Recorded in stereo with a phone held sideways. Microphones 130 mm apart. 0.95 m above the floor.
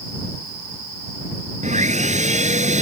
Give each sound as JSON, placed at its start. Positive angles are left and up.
{"t": 1.6, "sound": "sawing", "side_deg": -70}